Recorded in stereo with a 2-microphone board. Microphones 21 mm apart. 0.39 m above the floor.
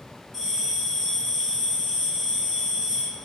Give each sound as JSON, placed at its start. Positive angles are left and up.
{"t": 0.3, "sound": "a bell", "side_deg": 10, "distance_m": 1.7}